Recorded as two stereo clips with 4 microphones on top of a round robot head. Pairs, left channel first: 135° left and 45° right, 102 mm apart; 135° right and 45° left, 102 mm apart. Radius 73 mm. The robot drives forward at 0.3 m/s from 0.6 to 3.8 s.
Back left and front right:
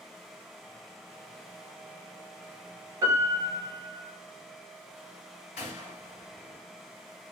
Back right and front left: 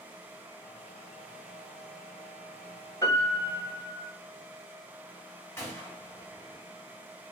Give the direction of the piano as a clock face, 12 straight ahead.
3 o'clock.